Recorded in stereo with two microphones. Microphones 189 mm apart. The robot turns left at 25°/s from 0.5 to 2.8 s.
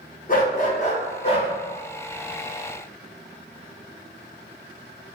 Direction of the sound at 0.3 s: 50° left (ahead or behind).